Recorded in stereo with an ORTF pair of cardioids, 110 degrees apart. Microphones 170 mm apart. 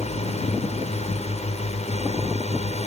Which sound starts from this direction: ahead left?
A drone, at 0.0 s.